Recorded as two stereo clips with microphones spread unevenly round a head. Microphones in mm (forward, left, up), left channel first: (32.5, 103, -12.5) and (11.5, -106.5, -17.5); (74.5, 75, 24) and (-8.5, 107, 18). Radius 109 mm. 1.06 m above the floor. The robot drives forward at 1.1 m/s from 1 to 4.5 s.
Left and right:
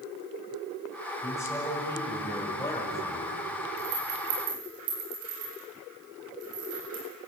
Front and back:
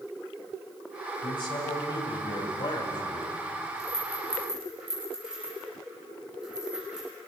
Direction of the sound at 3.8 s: 115° right.